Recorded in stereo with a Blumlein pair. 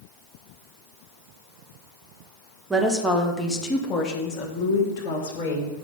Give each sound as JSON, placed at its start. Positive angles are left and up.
{"t": 2.7, "sound": "a woman speaking", "azimuth_deg": -10, "distance_m": 1.5}